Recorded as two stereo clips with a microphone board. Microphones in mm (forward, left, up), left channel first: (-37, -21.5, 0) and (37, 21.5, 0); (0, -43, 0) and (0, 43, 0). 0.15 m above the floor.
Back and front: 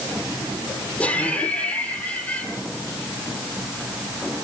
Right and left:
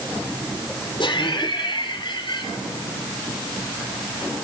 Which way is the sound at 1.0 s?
70° right.